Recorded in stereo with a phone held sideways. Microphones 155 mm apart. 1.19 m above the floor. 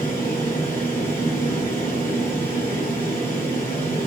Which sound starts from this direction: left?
A fan, at 0.0 s.